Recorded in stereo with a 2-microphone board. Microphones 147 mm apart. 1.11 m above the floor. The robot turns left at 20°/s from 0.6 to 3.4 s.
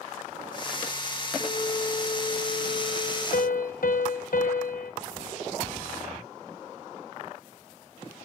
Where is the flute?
140° left, 2.5 m; by 3.2 s 100° left, 2.5 m.